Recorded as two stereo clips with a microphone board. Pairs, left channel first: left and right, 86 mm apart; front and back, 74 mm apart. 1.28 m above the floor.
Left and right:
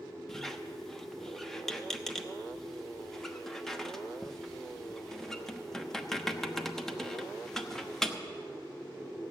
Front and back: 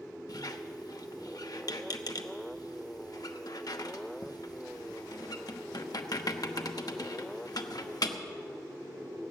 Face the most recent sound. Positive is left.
turn(degrees=5)